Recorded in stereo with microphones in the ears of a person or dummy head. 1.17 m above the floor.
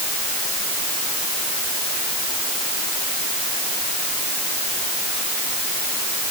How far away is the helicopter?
I don't hear a helicopter.